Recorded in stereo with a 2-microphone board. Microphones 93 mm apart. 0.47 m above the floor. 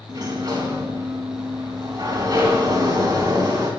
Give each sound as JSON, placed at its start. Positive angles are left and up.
{"t": 0.1, "sound": "a sliding door", "side_deg": -45, "distance_m": 4.0}